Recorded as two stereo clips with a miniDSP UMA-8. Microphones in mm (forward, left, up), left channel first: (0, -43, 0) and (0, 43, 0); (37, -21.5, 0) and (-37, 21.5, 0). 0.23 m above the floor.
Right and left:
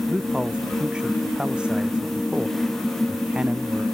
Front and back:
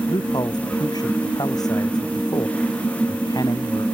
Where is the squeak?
I don't hear a squeak.